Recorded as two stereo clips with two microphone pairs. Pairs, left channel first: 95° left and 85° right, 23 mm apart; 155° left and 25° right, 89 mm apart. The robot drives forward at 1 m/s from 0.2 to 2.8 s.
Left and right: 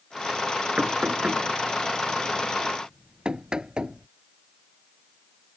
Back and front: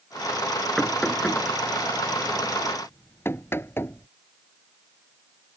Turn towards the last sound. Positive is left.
turn(degrees=-140)